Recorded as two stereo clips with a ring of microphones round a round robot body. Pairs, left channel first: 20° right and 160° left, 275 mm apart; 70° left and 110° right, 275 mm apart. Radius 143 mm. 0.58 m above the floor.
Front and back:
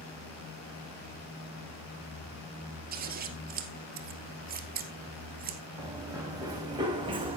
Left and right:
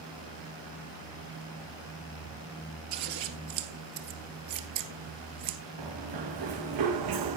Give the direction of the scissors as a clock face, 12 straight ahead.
5 o'clock.